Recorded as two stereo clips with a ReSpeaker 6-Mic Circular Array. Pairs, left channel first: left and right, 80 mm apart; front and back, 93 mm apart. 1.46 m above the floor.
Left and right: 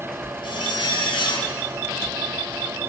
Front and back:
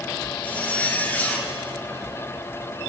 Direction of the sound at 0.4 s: 70° left.